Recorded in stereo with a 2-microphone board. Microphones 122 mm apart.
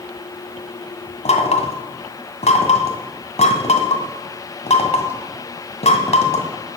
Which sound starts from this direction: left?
Knocking, at 1.2 s.